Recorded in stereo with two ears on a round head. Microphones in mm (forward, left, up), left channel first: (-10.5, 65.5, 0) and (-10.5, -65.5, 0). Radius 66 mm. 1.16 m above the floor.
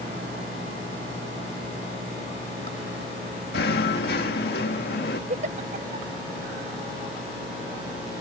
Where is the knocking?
75° left (ahead or behind).